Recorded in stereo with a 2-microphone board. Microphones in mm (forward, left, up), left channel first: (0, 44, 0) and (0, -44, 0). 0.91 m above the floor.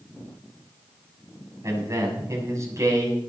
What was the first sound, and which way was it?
A man speaking, 40° right (ahead or behind).